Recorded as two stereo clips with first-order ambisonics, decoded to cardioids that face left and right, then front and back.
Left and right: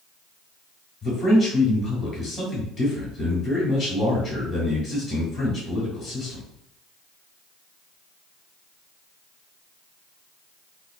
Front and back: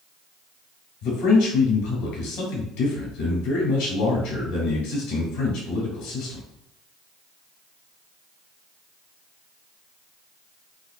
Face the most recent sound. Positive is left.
turn(degrees=0)